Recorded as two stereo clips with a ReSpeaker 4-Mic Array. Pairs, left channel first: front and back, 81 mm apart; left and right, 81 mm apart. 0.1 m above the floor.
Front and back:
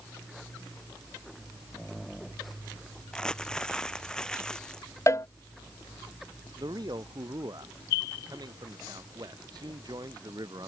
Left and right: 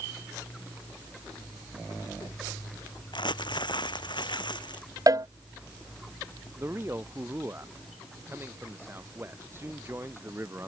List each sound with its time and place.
3.1 s crumpling: 80° left
5.1 s a cowbell: 50° right
6.6 s a man speaking: 150° right